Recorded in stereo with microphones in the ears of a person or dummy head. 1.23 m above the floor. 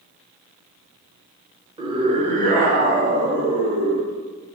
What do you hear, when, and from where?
1.8 s a scream: 20° right (ahead or behind), 1.1 m; by 4.1 s 75° right (ahead or behind), 2 m